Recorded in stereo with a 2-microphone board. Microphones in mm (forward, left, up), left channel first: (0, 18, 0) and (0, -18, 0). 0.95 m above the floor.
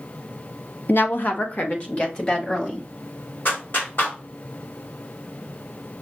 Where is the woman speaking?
65° left (ahead or behind), 0.7 m; by 2.9 s 30° left (ahead or behind), 2 m.